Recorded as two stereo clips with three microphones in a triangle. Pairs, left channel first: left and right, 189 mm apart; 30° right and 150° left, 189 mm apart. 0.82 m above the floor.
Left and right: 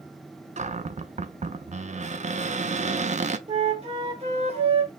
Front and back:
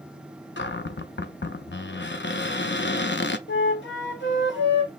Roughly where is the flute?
Ahead right.